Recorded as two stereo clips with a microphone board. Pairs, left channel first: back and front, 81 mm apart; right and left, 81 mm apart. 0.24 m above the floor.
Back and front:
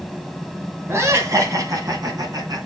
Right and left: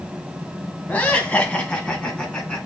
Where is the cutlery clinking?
No cutlery clinking in this recording.